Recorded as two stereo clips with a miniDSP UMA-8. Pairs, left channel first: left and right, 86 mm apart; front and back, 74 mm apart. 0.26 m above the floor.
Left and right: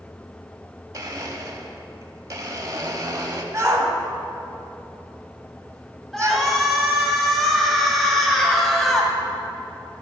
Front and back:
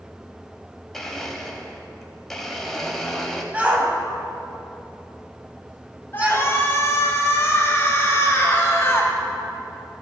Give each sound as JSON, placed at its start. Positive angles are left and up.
{"t": 0.9, "sound": "a blender", "azimuth_deg": -85, "distance_m": 0.9}
{"t": 3.5, "sound": "a shout", "azimuth_deg": -120, "distance_m": 1.2}
{"t": 6.1, "sound": "a shout", "azimuth_deg": 5, "distance_m": 1.5}